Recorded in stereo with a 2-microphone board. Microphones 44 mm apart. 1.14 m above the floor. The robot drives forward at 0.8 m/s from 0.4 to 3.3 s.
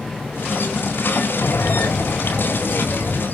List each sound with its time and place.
1.4 s breathing: 80° left, 1.0 m; by 3.2 s 35° left (ahead or behind), 1.6 m